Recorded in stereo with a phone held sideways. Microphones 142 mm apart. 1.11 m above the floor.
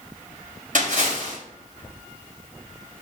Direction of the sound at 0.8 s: 70° right (ahead or behind).